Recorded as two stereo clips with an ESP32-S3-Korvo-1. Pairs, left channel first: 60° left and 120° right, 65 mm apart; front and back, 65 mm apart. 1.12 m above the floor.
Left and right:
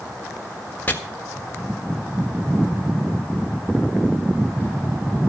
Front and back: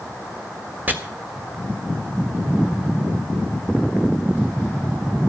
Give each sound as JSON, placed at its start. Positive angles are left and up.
{"t": 0.9, "sound": "chopping", "azimuth_deg": 120, "distance_m": 1.6}